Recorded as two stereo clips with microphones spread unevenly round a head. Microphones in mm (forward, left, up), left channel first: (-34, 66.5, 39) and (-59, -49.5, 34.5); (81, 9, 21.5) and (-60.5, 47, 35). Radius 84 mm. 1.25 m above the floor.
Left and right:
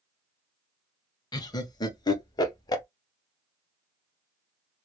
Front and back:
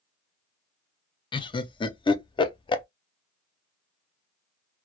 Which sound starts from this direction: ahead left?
Laughter, at 1.3 s.